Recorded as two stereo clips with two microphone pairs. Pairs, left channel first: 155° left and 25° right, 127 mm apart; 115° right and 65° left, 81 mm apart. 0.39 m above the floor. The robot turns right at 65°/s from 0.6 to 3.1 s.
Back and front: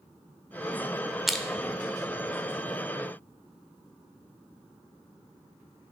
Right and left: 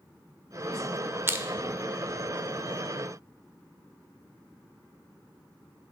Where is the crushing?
60° left, 0.6 m; by 1.4 s 75° left, 0.6 m.